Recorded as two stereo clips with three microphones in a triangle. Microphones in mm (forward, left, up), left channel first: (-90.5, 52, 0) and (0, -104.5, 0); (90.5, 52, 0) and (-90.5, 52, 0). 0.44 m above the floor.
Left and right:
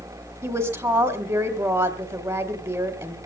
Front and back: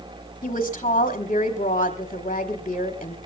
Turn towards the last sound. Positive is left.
turn(degrees=-5)